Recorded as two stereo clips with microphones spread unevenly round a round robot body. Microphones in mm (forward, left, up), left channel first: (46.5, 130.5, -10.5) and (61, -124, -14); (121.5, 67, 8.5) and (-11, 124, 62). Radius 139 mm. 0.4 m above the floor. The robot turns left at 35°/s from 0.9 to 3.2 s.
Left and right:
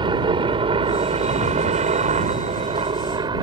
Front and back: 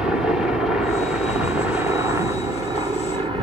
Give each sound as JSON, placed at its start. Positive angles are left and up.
{"t": 0.0, "sound": "a helicopter", "azimuth_deg": -60}